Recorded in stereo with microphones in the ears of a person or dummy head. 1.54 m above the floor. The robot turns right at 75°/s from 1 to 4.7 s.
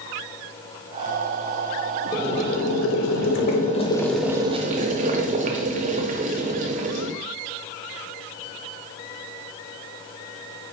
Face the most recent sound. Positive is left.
turn(degrees=-140)